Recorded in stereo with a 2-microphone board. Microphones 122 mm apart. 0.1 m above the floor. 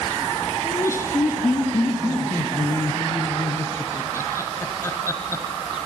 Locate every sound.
0.6 s laughter: 25° left (ahead or behind), 1.7 m